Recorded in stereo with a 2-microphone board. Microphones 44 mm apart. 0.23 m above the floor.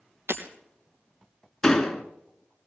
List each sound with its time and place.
0.3 s breaking glass: 75° right (ahead or behind), 3 m
1.6 s a door slam: 10° left (ahead or behind), 2 m